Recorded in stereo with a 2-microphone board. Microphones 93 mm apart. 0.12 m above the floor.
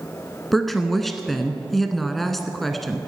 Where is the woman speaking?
Centre (ahead or behind), 1.1 m.